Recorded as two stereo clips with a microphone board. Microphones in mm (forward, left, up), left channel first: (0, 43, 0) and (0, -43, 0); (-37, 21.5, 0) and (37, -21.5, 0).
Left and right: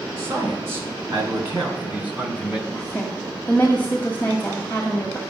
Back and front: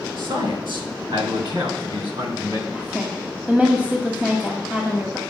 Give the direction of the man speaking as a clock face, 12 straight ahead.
1 o'clock.